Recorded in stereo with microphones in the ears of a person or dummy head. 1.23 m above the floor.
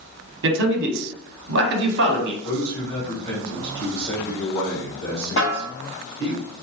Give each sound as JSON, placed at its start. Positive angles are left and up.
{"t": 0.4, "sound": "a man speaking", "side_deg": -60, "distance_m": 0.9}
{"t": 2.4, "sound": "a man speaking", "side_deg": 20, "distance_m": 1.8}
{"t": 5.4, "sound": "a snare drum", "side_deg": 35, "distance_m": 1.4}